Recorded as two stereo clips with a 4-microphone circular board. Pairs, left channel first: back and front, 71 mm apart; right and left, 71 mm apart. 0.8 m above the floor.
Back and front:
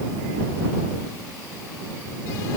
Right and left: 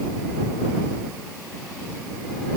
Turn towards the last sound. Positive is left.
No sound to turn to.